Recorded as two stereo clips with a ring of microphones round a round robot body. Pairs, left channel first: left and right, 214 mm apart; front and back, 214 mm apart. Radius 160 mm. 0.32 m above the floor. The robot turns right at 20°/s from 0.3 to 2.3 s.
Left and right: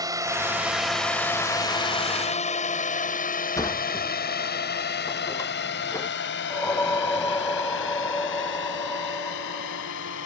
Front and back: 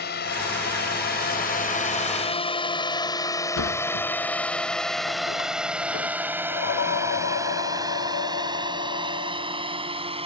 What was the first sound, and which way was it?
A drone, 20° right.